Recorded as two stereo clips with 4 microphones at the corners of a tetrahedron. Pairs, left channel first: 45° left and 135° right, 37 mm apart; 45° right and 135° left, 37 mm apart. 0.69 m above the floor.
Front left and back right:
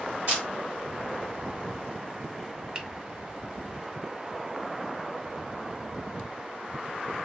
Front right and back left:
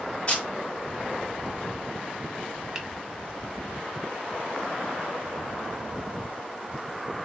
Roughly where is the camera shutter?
Right.